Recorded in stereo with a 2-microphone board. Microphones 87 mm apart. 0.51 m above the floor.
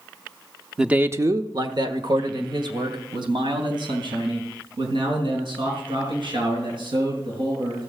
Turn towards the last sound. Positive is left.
turn(degrees=-75)  # may be behind; listen again after turning